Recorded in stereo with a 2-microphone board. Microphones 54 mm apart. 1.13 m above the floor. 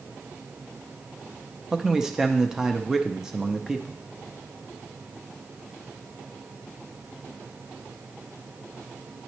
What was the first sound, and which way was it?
A man speaking, 10° right (ahead or behind).